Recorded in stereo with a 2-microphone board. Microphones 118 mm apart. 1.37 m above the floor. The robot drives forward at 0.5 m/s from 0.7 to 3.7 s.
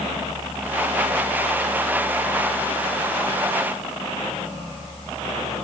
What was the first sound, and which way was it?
Only background noise.